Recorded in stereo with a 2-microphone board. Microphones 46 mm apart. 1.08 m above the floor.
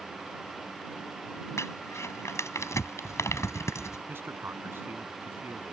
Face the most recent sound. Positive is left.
turn(degrees=-50)  # may be behind; listen again after turning